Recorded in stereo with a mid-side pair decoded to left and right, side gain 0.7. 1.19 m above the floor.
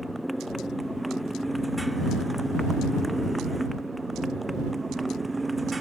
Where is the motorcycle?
Straight ahead; by 5.8 s 10° right.